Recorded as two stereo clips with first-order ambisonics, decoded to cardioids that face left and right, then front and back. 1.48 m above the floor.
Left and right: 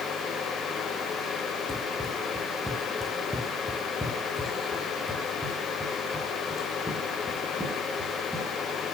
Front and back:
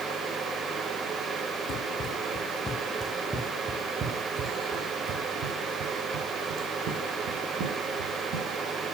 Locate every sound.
1.7 s running footsteps: 5° left, 1.7 m; by 8.5 s straight behind, 4 m